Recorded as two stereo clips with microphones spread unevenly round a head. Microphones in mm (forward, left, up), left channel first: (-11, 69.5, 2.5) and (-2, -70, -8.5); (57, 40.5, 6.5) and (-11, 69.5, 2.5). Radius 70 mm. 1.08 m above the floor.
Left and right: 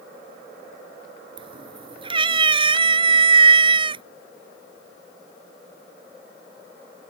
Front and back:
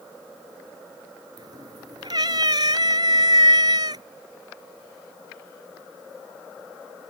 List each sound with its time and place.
1.4 s a cat meowing: 145° right